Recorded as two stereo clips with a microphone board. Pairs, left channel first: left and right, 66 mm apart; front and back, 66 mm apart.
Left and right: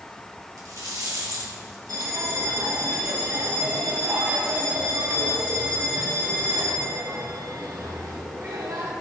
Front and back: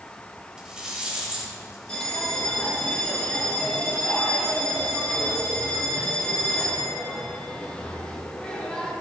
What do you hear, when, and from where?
0.6 s a rattle: 105° right, 3.5 m
1.9 s a bell: 75° right, 3 m